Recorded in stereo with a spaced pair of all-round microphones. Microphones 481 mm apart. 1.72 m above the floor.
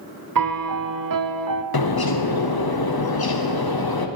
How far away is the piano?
About 0.5 m.